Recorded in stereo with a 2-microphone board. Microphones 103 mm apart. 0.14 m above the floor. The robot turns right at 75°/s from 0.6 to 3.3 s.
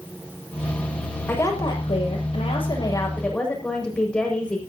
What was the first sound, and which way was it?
A woman speaking, 20° left.